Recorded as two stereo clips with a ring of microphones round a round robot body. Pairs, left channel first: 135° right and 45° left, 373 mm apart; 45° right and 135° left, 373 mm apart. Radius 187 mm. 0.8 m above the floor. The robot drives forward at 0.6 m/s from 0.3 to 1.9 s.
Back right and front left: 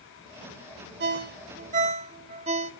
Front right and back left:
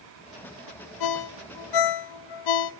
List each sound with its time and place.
1.0 s a ringtone: 15° right, 1.4 m; by 2.7 s 25° right, 0.9 m